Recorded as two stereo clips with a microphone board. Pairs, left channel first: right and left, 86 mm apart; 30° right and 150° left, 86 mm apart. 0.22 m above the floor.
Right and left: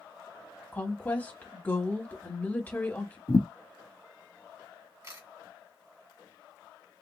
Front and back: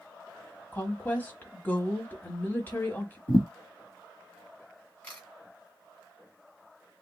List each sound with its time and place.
0.7 s a woman speaking: 55° right, 1.1 m
3.3 s a thud: 45° right, 1.4 m
5.0 s a camera shutter: 40° left, 2 m